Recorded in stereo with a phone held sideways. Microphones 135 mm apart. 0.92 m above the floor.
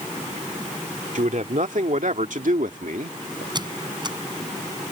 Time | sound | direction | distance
1.1 | a man speaking | 65° right (ahead or behind) | ?
3.5 | a squeak | 35° right (ahead or behind) | ?